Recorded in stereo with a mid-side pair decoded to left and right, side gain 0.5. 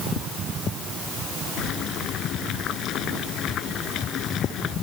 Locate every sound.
1.6 s boiling: 65° left